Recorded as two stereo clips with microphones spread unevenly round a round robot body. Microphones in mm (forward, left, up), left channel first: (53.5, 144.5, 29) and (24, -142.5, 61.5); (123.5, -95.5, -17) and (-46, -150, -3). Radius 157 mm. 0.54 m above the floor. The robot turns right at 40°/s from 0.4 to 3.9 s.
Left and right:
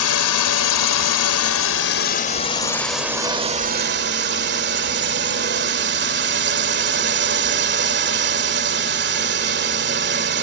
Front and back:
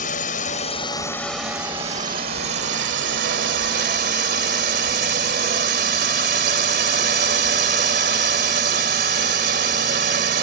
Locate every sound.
0.0 s a drone: 70° left; by 10.4 s 150° right